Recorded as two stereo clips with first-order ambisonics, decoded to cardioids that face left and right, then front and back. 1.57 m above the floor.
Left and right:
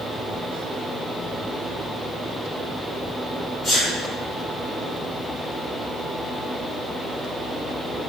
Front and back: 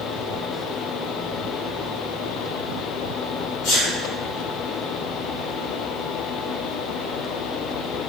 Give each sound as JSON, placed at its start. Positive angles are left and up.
{"t": 3.6, "sound": "a sneeze", "azimuth_deg": 10, "distance_m": 1.6}